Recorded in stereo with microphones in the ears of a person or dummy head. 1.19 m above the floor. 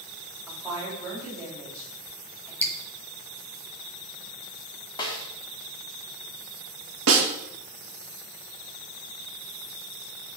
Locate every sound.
0.5 s a woman speaking: 20° right (ahead or behind), 4.5 m
2.6 s dripping: 15° left (ahead or behind), 1.2 m
5.0 s a snare drum: 20° left (ahead or behind), 1.6 m
7.1 s a snare drum: 80° right, 1.8 m